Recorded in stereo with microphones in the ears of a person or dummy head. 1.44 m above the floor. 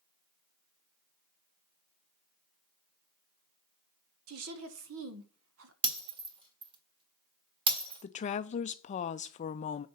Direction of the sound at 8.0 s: 40° left (ahead or behind).